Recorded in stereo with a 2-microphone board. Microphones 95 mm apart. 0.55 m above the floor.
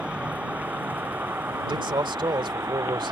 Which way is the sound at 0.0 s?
10° right (ahead or behind).